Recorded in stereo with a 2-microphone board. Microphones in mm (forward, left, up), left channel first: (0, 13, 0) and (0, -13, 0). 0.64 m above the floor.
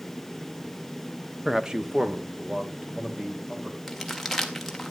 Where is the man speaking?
20° right (ahead or behind), 0.7 m; by 3.8 s 30° right (ahead or behind), 4 m.